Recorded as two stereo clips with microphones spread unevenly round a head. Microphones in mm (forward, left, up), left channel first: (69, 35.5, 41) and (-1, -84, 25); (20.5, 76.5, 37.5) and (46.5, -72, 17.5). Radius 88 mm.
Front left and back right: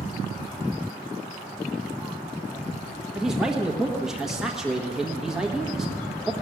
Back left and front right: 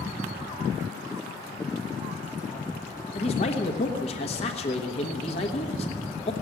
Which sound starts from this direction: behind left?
A man speaking, at 3.1 s.